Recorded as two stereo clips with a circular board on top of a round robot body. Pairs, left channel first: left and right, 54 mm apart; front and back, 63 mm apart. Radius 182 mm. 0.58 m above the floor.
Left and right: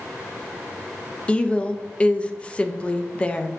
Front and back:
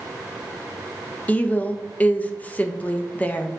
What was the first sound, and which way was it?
A woman speaking, 40° left.